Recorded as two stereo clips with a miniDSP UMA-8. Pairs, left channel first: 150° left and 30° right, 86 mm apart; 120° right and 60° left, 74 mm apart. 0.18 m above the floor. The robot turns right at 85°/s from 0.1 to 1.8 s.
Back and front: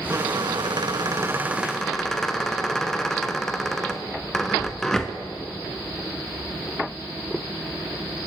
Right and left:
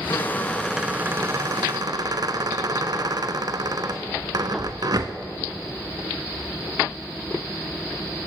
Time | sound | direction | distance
0.1 | a squeak | 80° right | 0.7 m